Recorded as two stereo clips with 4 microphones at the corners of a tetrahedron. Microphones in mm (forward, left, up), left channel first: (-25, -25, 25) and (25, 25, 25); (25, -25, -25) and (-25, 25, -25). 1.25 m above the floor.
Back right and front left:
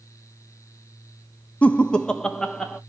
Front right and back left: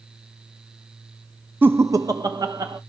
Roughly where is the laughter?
Behind.